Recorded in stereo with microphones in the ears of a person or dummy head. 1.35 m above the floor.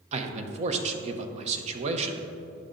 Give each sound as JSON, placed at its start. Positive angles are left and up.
{"t": 0.1, "sound": "a man speaking", "side_deg": -35, "distance_m": 0.8}